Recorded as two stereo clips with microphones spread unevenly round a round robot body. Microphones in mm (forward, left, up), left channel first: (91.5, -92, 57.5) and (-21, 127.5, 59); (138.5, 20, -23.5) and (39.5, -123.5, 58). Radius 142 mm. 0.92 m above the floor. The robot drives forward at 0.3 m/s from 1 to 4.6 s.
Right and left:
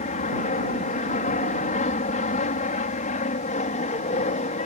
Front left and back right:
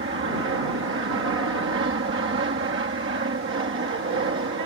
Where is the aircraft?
115° right; by 4.7 s 120° right.